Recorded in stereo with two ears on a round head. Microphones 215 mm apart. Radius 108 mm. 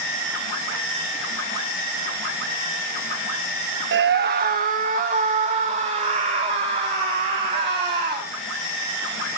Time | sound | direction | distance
3.9 | a scream | 45° right (ahead or behind) | 0.8 m